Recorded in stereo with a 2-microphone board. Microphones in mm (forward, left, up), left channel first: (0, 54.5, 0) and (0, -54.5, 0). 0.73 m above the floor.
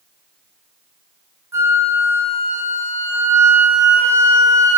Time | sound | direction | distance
1.5 | a flute | 25° right (ahead or behind) | 1.8 m